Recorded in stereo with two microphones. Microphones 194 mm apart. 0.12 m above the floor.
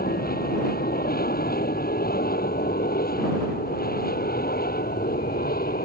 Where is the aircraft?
50° left (ahead or behind).